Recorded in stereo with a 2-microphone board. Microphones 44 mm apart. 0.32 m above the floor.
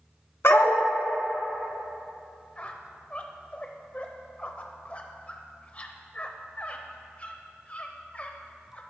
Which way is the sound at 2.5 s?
30° left (ahead or behind).